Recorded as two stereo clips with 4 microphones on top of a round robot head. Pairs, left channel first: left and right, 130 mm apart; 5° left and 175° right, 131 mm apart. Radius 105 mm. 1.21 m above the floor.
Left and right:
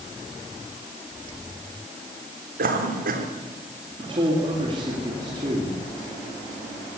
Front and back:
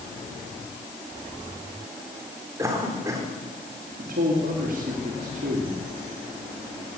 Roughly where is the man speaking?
Behind right.